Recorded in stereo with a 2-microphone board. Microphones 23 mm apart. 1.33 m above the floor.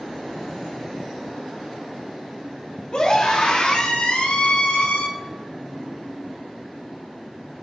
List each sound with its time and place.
2.9 s a scream: 45° left (ahead or behind), 3.5 m; by 5.1 s 85° left, 3 m